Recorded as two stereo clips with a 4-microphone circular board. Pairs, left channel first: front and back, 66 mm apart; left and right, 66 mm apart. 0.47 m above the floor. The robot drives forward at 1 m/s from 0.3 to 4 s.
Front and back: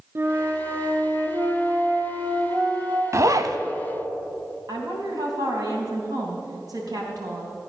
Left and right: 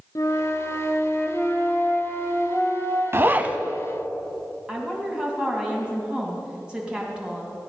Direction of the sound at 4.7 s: 165° right.